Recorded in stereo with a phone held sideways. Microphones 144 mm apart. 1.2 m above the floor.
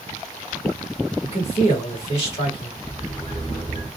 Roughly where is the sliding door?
Left.